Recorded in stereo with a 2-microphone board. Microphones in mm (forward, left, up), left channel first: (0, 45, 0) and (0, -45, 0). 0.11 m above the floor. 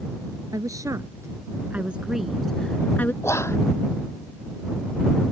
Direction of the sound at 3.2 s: 30° left (ahead or behind).